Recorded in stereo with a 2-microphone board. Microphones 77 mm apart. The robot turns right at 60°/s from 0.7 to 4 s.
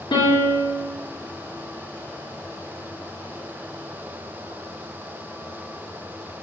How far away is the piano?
About 0.8 m.